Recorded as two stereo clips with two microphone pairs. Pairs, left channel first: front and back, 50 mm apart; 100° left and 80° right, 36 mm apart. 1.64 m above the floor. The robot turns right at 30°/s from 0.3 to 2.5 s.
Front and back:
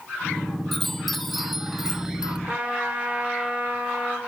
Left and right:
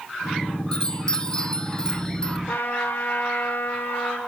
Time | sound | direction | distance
0.7 | a chime | 80° left | 1.1 m
2.5 | a trumpet | 115° left | 5.5 m